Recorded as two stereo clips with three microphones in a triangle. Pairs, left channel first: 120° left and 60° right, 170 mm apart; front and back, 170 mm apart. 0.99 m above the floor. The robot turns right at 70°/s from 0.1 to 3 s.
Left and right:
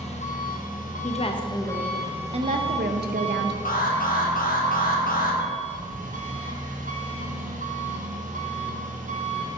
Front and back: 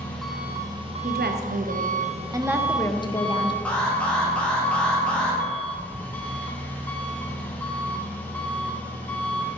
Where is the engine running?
80° left, 0.9 m; by 9.6 s 80° right, 0.9 m.